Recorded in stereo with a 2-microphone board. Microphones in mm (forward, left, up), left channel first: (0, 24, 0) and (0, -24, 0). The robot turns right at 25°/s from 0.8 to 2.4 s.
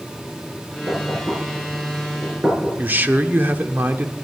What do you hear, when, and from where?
0.9 s knocking: 60° right (ahead or behind), 5.5 m; by 2.7 s 25° right (ahead or behind), 5.5 m
2.8 s a man speaking: 45° right (ahead or behind), 0.9 m